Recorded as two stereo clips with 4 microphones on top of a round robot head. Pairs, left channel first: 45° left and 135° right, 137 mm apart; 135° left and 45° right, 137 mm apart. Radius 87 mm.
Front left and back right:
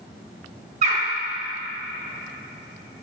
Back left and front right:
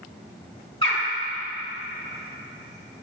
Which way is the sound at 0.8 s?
175° right.